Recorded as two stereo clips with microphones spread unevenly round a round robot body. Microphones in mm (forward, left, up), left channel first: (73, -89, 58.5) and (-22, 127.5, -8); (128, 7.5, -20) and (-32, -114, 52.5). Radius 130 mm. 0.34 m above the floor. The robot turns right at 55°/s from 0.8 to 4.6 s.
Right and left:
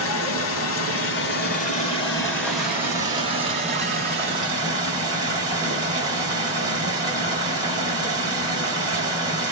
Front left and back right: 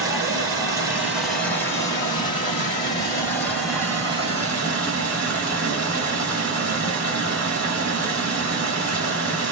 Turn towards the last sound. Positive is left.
turn(degrees=155)